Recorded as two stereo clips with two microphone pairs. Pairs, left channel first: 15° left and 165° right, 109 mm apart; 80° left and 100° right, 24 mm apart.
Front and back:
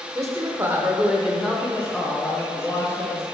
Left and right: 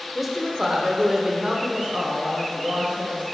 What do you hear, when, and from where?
0.1 s a woman speaking: 175° left, 0.9 m; by 3.2 s 50° right, 1.8 m